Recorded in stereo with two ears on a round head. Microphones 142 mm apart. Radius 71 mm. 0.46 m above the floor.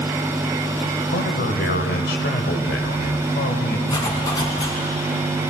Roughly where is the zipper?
Left.